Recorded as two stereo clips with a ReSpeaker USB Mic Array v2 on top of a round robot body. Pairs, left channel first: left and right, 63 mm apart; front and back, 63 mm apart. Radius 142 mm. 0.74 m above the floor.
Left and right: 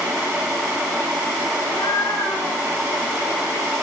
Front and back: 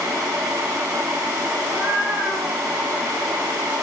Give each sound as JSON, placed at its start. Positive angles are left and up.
{"t": 1.6, "sound": "a cat meowing", "azimuth_deg": 95, "distance_m": 6.5}